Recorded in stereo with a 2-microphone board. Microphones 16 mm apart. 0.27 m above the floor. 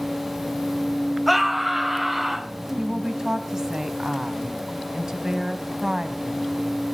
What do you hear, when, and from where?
1.3 s a scream: centre (ahead or behind), 1.5 m
2.8 s a woman speaking: 25° right (ahead or behind), 2.5 m